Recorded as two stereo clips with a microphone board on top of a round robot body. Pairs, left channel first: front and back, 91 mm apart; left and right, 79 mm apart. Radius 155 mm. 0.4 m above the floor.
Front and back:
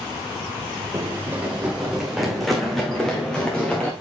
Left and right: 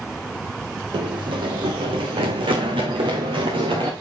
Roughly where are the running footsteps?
Behind right.